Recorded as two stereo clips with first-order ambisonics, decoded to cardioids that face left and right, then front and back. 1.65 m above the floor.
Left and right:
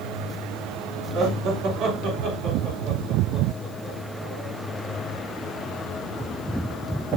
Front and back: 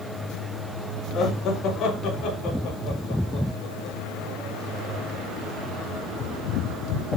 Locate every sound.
1.1 s laughter: 55° right, 3 m; by 5.2 s 20° right, 6.5 m